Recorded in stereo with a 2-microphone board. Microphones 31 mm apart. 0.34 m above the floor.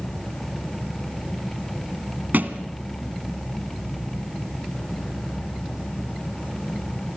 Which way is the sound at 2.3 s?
70° right (ahead or behind).